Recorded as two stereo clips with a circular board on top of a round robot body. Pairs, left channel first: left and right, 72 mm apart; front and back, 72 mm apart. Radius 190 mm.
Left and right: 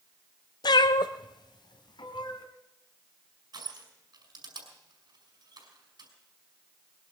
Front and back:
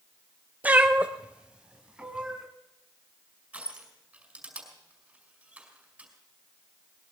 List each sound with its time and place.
0.6 s a cat meowing: 110° left, 0.5 m; by 2.5 s 105° left, 2 m
3.5 s crushing: 105° right, 6 m